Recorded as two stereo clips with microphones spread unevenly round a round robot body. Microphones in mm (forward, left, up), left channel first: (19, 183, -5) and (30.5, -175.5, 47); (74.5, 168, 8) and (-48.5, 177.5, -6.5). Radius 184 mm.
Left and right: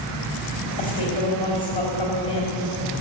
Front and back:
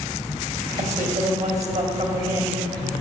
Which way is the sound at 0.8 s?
165° left.